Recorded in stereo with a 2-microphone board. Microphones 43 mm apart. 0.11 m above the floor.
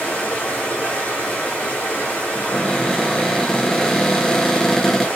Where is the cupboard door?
10° left (ahead or behind), 0.6 m.